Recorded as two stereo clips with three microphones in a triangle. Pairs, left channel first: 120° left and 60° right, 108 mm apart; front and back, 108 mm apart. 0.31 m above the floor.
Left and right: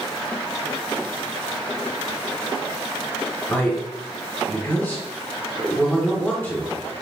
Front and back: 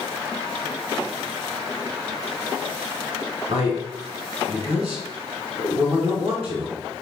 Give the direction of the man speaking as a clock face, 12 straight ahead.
6 o'clock.